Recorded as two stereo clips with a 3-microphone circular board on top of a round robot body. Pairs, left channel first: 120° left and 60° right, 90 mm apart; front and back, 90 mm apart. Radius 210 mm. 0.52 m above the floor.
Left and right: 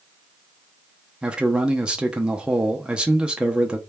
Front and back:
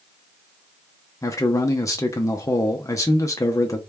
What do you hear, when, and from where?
1.2 s a man speaking: 15° left, 0.8 m